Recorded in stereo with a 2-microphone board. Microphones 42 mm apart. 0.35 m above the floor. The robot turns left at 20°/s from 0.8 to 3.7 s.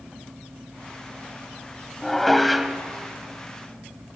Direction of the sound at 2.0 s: 10° left (ahead or behind).